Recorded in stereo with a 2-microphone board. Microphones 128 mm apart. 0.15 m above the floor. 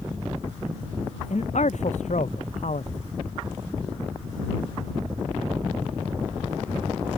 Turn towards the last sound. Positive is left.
turn(degrees=65)  # may be behind; listen again after turning